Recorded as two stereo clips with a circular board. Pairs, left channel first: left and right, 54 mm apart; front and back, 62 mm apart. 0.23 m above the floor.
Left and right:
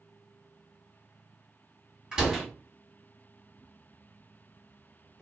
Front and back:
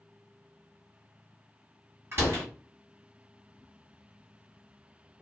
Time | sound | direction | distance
2.1 | a door slam | 155° right | 1.4 m